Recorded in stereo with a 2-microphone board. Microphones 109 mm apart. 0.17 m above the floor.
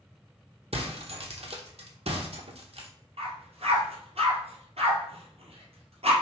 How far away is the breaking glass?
About 0.9 m.